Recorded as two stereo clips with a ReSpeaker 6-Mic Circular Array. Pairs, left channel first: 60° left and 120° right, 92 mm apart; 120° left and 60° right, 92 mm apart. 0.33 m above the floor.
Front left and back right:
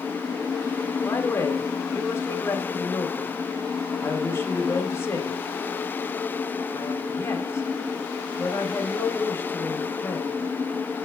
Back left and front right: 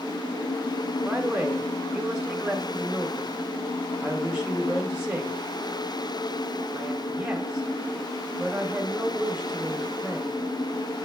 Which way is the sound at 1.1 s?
15° left.